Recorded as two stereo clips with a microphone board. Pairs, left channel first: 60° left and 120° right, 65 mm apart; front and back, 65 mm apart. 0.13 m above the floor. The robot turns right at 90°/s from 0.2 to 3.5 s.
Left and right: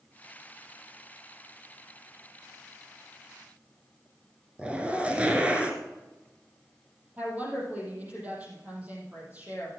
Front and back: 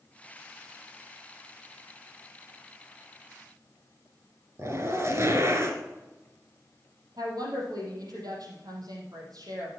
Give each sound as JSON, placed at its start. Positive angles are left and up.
{"t": 4.6, "sound": "a zipper", "azimuth_deg": 175, "distance_m": 1.8}
{"t": 7.2, "sound": "a woman speaking", "azimuth_deg": 175, "distance_m": 4.5}